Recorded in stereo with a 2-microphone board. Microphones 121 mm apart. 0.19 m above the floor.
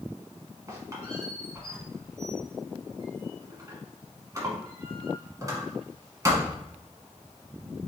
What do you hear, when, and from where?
0.7 s a squeak: 25° right (ahead or behind), 1.1 m